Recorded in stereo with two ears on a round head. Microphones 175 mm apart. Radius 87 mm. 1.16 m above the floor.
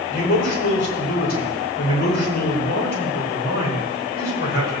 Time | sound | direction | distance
0.1 | a man speaking | 50° left (ahead or behind) | 5 m